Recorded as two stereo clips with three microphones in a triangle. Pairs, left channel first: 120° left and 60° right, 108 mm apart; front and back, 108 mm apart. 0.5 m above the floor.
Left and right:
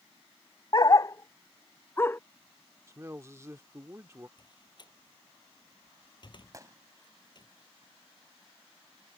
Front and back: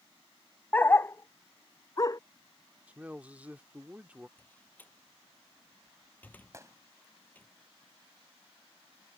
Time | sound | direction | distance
0.7 | a dog barking | 70° left | ?
2.9 | a man speaking | 110° right | ?
4.4 | a door slam | 75° left | ?
6.5 | a gunshot | 120° right | ?